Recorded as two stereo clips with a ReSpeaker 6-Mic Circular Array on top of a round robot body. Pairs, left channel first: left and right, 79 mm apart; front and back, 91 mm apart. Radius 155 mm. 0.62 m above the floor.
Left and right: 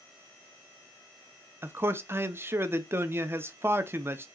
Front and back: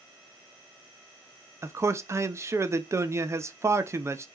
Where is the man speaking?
135° right, 0.7 m.